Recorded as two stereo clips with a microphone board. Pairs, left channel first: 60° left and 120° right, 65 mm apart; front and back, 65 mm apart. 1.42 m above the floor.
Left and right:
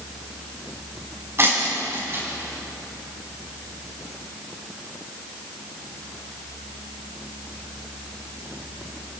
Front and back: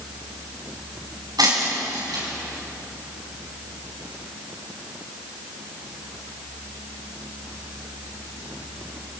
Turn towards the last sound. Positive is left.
turn(degrees=-170)